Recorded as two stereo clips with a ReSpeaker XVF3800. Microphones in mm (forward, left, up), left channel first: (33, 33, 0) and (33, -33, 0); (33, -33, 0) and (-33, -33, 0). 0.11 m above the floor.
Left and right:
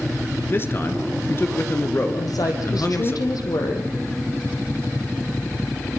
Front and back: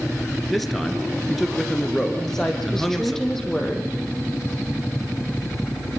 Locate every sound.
0.5 s a man speaking: 90° left, 1.6 m
2.2 s a woman speaking: 85° left, 3.5 m